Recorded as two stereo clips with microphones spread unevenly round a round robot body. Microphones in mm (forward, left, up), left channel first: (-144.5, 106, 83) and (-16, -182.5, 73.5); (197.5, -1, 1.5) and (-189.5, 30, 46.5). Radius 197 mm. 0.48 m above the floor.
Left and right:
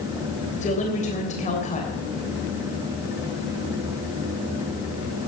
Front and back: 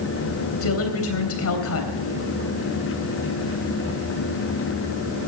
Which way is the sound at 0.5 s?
45° left.